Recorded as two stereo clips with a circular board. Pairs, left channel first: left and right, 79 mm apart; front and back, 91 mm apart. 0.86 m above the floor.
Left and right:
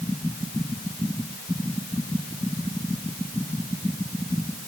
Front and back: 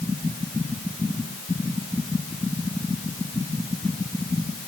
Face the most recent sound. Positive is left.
No sound to turn to.